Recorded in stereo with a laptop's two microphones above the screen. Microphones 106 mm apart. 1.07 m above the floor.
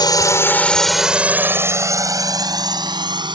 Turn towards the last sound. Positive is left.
turn(degrees=-45)  # may be behind; listen again after turning